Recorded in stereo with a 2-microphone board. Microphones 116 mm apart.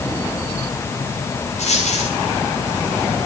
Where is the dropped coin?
75° left (ahead or behind), 9 m.